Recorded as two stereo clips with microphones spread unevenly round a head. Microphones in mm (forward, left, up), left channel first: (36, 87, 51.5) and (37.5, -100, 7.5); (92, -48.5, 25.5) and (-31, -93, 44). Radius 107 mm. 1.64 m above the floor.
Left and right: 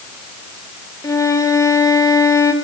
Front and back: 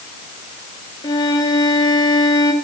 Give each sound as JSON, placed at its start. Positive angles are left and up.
{"t": 1.0, "sound": "a violin", "azimuth_deg": 75, "distance_m": 1.2}